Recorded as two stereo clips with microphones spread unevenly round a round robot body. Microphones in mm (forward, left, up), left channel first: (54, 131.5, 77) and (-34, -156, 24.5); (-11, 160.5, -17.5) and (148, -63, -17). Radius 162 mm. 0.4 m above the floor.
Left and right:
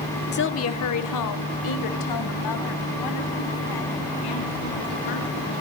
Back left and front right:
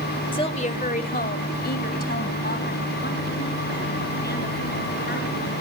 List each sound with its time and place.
0.3 s a woman speaking: 85° left, 1.1 m; by 5.5 s 70° left, 6.5 m